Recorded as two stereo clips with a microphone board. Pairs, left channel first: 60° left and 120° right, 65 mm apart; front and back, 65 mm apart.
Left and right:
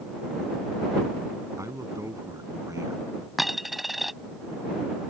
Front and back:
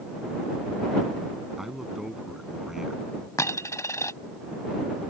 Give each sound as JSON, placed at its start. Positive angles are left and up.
{"t": 1.6, "sound": "a man speaking", "azimuth_deg": -95}
{"t": 3.4, "sound": "a dropped coin", "azimuth_deg": -35}